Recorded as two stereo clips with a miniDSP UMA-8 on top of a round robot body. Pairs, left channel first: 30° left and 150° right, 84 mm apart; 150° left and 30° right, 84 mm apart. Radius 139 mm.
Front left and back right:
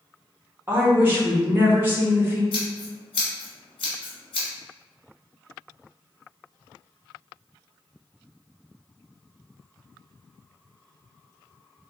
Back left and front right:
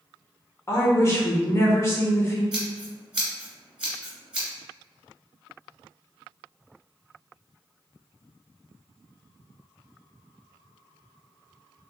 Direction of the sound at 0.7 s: 170° left.